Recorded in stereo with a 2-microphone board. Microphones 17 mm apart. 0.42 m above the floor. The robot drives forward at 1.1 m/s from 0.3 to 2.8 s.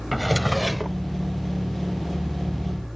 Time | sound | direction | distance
0.1 | a drawer | 5° right (ahead or behind) | ?